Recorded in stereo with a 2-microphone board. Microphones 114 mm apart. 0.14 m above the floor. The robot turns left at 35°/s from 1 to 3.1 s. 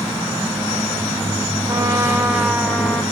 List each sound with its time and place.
1.7 s a trumpet: 145° right, 2.0 m; by 3.0 s 170° left, 2.0 m